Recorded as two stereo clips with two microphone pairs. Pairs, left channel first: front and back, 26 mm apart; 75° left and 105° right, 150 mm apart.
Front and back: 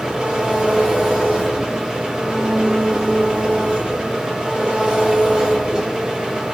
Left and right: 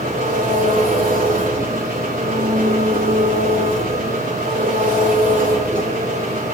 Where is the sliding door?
I don't hear a sliding door.